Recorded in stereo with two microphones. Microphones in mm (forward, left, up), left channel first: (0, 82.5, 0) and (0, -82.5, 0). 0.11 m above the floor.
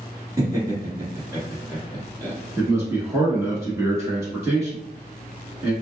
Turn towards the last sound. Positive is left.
turn(degrees=-20)  # may be behind; listen again after turning